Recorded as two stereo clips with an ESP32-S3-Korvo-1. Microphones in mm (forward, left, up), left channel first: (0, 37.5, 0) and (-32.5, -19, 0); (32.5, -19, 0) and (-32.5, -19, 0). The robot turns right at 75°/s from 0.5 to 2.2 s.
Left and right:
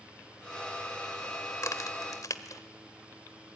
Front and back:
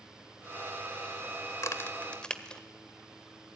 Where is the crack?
25° left, 1.4 m; by 2.6 s 75° left, 1.4 m.